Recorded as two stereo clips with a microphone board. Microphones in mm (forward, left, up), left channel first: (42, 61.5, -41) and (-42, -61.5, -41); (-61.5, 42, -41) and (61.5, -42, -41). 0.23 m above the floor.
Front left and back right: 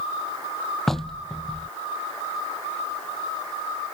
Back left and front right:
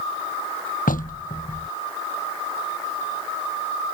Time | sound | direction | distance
0.9 | knocking | 145° left | ?